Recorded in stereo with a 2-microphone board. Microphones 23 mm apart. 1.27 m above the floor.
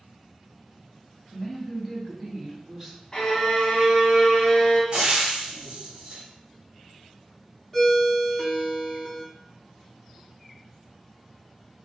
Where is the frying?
35° right (ahead or behind), 1.6 m.